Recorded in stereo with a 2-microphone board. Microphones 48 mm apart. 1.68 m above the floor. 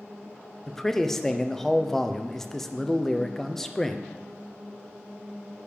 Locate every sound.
0.7 s a man speaking: 10° left (ahead or behind), 0.6 m